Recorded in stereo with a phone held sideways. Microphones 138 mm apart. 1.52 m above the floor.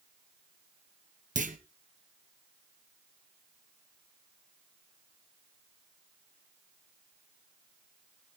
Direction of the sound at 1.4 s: 65° right (ahead or behind).